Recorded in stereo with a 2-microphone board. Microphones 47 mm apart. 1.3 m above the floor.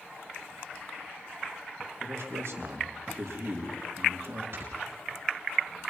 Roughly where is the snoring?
Right.